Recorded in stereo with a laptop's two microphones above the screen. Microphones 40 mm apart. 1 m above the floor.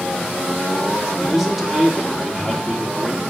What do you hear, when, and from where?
1.2 s a man speaking: 5° right (ahead or behind), 2.5 m